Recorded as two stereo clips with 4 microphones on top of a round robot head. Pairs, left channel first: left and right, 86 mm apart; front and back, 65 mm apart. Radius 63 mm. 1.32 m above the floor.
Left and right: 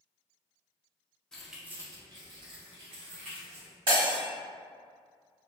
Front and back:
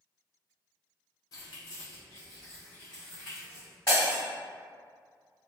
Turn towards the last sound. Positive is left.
turn(degrees=-70)